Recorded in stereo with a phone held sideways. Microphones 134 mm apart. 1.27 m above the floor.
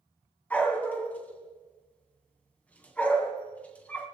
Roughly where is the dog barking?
Centre.